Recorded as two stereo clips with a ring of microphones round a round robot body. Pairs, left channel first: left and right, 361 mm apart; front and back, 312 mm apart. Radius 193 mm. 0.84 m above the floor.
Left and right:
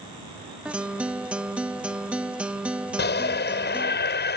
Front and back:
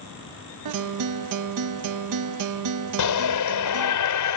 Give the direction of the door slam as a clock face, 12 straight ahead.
No door slam in this recording.